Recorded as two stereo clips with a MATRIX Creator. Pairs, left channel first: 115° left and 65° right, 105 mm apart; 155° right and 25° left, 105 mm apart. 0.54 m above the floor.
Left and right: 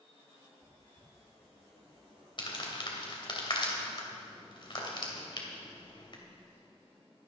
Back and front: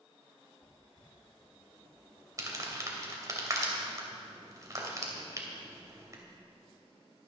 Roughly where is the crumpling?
Left.